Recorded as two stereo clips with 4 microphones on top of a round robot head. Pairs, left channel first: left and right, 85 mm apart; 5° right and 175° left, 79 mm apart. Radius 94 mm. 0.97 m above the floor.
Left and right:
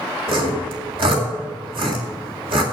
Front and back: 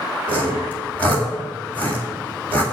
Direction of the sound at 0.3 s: 80° right.